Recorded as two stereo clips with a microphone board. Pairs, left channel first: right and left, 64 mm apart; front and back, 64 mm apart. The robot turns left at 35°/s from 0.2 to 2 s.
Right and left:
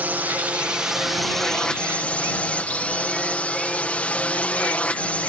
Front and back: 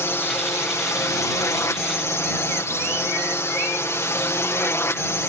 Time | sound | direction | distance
0.0 | a drone | 35° left | ?